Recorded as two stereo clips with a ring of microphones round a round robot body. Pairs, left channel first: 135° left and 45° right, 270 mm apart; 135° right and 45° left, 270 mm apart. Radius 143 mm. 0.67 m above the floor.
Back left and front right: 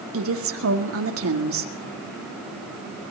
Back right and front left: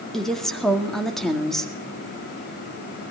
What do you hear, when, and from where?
0.1 s a woman speaking: 45° right, 1.8 m